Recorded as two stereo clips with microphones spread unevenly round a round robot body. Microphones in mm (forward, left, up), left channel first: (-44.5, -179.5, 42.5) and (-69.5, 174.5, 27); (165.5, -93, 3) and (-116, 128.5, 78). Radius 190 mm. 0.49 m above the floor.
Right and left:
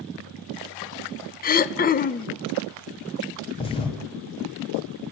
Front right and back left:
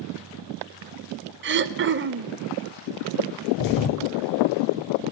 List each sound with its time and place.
1.4 s throat clearing: 155° right, 0.8 m
3.5 s a thud: 10° right, 1.8 m